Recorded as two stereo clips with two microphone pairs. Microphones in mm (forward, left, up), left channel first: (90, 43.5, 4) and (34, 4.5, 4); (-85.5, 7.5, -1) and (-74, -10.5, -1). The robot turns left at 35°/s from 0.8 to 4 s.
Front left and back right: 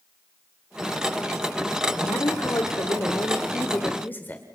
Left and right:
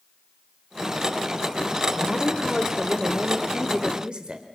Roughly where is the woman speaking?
Ahead left.